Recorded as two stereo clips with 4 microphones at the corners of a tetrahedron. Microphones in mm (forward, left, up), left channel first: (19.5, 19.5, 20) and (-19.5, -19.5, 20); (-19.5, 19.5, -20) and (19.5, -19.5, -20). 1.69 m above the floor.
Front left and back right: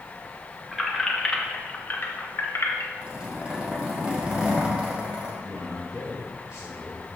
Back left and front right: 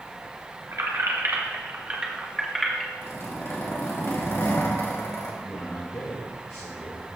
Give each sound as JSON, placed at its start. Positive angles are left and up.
{"t": 0.7, "sound": "keys jangling", "azimuth_deg": -45, "distance_m": 1.3}
{"t": 3.0, "sound": "a zipper", "azimuth_deg": 160, "distance_m": 2.5}
{"t": 5.4, "sound": "a man speaking", "azimuth_deg": 160, "distance_m": 2.5}